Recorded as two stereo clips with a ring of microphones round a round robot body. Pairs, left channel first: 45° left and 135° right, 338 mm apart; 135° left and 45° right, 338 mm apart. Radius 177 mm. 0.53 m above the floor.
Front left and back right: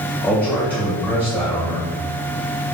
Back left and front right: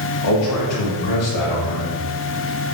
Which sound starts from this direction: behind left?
A man speaking, at 0.2 s.